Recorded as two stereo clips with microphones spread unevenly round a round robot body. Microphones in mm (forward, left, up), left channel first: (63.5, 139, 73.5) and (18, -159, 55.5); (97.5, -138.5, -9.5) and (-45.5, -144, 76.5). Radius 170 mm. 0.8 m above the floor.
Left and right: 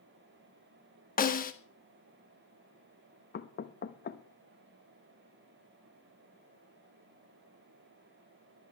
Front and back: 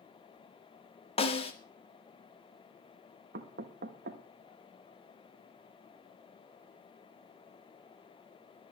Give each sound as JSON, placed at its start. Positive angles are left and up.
{"t": 1.2, "sound": "a snare drum", "azimuth_deg": 20, "distance_m": 1.5}
{"t": 3.3, "sound": "knocking", "azimuth_deg": 135, "distance_m": 1.0}